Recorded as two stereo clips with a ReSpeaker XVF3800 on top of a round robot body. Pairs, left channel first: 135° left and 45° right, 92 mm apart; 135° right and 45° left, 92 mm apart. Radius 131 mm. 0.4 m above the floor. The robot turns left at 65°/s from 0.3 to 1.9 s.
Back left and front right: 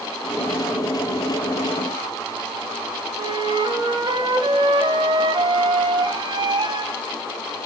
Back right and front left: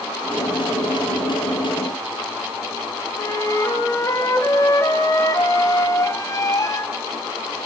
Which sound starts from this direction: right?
A flute, at 3.2 s.